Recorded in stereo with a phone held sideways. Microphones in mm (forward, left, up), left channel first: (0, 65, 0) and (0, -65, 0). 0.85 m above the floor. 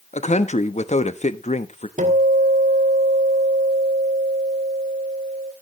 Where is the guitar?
75° right (ahead or behind), 2.5 m.